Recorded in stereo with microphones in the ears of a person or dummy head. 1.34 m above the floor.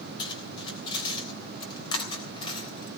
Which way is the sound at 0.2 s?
35° left (ahead or behind).